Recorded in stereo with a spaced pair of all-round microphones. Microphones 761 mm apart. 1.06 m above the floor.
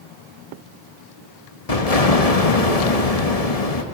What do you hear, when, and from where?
1.7 s an explosion: 50° left (ahead or behind), 1.7 m